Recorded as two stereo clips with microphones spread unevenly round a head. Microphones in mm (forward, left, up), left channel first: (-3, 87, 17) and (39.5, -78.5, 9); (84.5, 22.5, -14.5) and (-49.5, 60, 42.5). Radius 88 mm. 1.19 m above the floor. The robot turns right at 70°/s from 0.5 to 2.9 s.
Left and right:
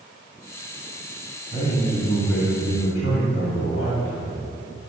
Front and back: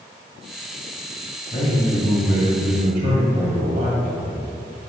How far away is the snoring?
No snoring in this recording.